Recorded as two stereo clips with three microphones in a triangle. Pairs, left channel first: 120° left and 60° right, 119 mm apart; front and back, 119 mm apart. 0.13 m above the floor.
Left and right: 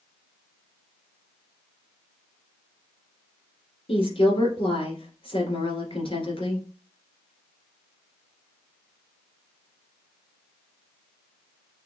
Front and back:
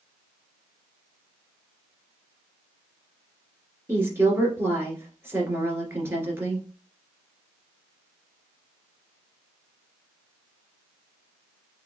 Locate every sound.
3.9 s a woman speaking: 115° left, 2 m